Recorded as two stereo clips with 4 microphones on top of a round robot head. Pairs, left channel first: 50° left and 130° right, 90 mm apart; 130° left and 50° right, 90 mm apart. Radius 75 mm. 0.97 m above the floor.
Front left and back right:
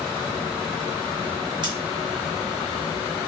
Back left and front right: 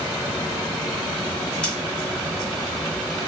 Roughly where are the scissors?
Behind right.